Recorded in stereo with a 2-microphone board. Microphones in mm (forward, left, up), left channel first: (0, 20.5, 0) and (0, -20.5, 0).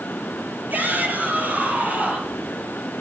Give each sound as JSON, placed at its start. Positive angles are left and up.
{"t": 0.7, "sound": "a shout", "side_deg": -50, "distance_m": 6.5}